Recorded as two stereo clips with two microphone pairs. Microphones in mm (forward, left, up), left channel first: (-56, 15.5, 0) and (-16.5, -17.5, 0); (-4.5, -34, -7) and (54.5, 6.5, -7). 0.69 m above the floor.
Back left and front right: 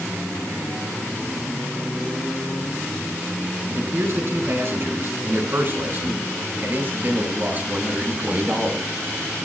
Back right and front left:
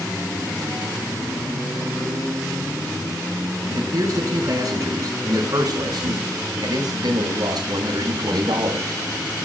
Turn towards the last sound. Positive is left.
turn(degrees=25)